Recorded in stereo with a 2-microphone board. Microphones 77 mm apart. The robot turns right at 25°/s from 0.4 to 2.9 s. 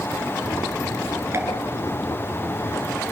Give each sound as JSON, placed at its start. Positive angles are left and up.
{"t": 1.3, "sound": "a pop", "side_deg": -30, "distance_m": 6.5}